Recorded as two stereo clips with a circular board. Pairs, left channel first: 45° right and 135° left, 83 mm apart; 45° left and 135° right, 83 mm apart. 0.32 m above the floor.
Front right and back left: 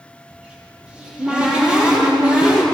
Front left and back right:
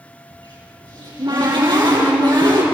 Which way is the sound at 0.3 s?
145° right.